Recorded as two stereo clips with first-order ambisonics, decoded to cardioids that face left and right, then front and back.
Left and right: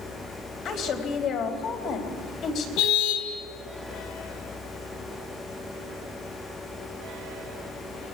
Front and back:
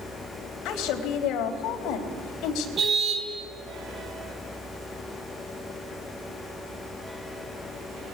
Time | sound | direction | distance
0.7 | a woman speaking | 40° left | 4.5 m
2.8 | a car horn | 115° left | 2.5 m